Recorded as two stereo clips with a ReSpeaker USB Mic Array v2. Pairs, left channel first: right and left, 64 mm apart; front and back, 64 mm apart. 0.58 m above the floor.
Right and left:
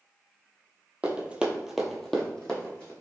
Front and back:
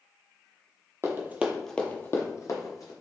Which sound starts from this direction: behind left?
Running footsteps, at 1.0 s.